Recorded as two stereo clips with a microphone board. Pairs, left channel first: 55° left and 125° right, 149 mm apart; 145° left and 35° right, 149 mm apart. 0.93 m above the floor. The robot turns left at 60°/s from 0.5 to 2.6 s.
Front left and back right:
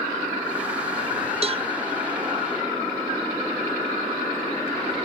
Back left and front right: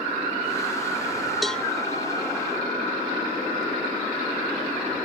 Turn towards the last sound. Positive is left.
turn(degrees=165)